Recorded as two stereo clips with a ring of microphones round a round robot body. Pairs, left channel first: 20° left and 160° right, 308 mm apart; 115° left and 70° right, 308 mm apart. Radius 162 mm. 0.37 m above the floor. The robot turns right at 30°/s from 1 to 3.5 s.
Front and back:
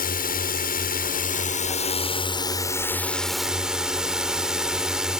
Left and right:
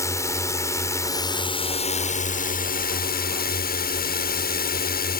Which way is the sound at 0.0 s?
40° left.